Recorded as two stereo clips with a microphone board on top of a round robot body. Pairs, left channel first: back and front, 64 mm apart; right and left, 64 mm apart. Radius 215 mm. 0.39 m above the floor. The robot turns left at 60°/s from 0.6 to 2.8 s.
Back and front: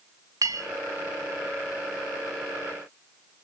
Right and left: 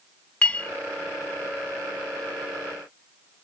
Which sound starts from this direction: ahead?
A clink, at 0.4 s.